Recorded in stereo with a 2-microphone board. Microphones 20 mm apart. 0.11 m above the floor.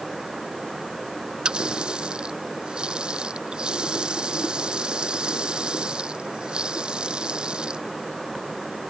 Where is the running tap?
50° right (ahead or behind).